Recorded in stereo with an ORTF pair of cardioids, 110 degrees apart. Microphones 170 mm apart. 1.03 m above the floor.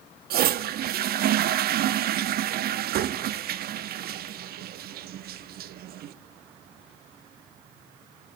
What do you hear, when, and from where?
0.3 s a toilet flushing: 60° right, 1.0 m